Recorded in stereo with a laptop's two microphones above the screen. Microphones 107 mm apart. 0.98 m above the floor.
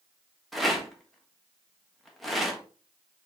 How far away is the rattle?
About 1.2 m.